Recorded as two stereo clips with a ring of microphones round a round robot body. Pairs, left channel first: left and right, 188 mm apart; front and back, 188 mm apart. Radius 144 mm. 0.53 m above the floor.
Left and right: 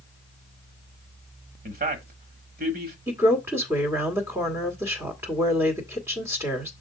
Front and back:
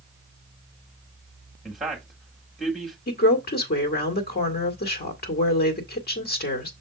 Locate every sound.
1.6 s a man speaking: 90° right, 1.7 m
3.1 s a woman speaking: 15° right, 1.7 m